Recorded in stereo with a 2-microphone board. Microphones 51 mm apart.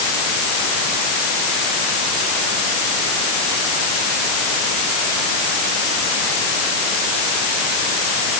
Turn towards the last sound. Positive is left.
No sound to turn to.